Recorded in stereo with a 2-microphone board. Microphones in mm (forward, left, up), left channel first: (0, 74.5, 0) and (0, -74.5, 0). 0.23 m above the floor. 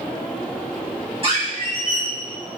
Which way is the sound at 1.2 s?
40° right (ahead or behind).